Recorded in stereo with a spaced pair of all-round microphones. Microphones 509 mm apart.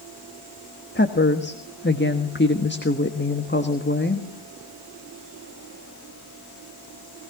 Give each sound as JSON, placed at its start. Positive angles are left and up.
{"t": 0.9, "sound": "a woman speaking", "side_deg": 20, "distance_m": 1.5}